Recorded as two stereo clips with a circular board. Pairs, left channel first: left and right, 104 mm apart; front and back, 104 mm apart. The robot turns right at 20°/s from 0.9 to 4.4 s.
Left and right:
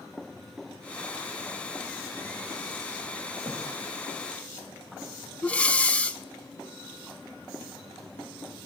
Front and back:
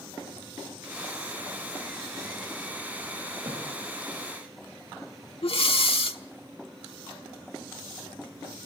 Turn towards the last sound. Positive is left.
turn(degrees=15)